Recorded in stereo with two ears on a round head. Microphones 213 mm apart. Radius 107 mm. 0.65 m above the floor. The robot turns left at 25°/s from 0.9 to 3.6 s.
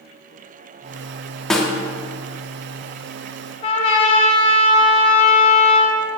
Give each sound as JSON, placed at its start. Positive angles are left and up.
{"t": 1.5, "sound": "a snare drum", "side_deg": 0, "distance_m": 1.1}
{"t": 3.6, "sound": "a trumpet", "side_deg": 25, "distance_m": 0.9}